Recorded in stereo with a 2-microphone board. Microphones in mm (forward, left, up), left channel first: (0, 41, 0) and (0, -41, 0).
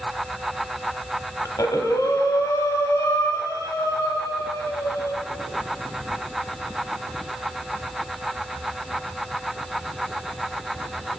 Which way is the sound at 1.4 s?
50° left (ahead or behind).